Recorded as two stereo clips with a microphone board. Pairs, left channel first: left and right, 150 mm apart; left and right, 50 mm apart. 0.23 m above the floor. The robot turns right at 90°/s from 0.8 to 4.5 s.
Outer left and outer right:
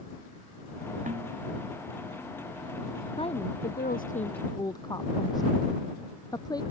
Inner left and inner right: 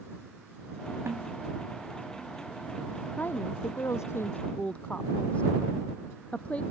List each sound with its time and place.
1.1 s a snare drum: 55° right (ahead or behind); by 1.3 s 30° right (ahead or behind)
3.2 s a woman speaking: 35° left (ahead or behind); by 6.6 s 25° left (ahead or behind)